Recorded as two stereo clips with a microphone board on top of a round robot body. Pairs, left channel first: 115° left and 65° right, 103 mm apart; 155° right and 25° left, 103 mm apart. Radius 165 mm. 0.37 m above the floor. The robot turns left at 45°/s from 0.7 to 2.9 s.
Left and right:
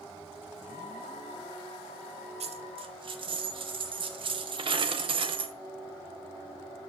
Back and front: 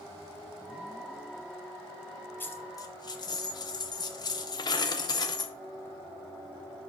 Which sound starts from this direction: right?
A dropped coin, at 2.4 s.